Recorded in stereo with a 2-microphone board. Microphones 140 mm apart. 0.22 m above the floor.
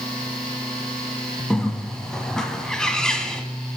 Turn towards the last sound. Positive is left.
turn(degrees=5)  # may be behind; listen again after turning